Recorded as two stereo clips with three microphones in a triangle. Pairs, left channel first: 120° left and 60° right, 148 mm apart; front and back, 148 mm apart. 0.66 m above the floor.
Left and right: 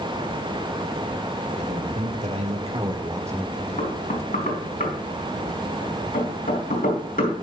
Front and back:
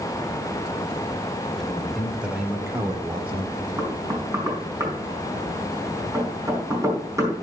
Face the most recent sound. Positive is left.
turn(degrees=110)